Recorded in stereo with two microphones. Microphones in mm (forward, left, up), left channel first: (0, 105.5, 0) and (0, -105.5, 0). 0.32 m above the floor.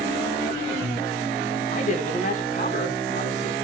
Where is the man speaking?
35° left (ahead or behind), 3 m.